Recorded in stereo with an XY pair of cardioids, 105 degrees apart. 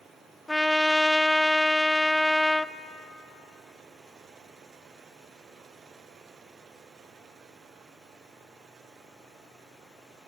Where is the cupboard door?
I don't hear a cupboard door.